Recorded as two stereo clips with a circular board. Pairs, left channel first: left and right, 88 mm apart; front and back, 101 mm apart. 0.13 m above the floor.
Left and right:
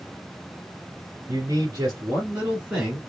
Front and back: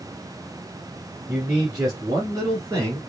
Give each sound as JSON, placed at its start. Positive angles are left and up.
{"t": 1.3, "sound": "a man speaking", "azimuth_deg": -120, "distance_m": 2.0}